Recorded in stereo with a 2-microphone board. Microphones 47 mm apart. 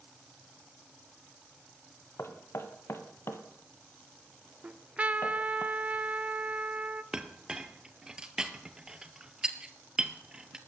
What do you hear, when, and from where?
2.2 s knocking: 65° left (ahead or behind), 1.7 m
4.6 s a trumpet: 30° right (ahead or behind), 0.9 m
7.1 s a clink: 15° right (ahead or behind), 1.4 m